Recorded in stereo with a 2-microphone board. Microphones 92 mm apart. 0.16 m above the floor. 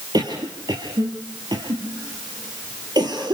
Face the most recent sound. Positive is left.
turn(degrees=-50)  # may be behind; listen again after turning